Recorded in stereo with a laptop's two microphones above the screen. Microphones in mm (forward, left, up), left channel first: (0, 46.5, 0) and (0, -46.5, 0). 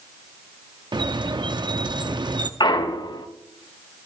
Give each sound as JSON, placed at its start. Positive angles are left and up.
{"t": 0.9, "sound": "a squeak", "side_deg": -55, "distance_m": 0.6}
{"t": 2.6, "sound": "a clunk", "side_deg": 55, "distance_m": 0.7}